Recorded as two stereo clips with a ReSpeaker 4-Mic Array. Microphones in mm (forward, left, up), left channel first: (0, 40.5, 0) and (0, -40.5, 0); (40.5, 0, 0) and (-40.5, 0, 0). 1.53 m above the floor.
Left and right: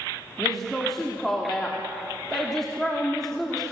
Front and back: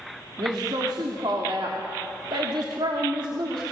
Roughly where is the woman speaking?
Behind.